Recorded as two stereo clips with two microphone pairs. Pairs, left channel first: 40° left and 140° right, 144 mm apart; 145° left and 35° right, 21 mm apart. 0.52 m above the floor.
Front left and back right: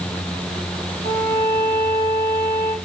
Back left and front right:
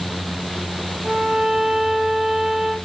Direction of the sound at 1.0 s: 90° right.